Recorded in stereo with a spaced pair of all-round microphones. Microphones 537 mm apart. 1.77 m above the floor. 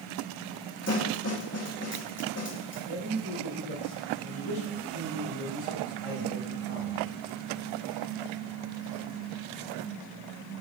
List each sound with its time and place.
0.9 s a snare drum: 25° left (ahead or behind), 1.3 m
2.9 s a man speaking: 65° right (ahead or behind), 1.9 m